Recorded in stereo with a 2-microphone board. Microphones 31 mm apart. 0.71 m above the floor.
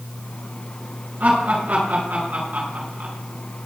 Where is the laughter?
65° right (ahead or behind), 7.5 m.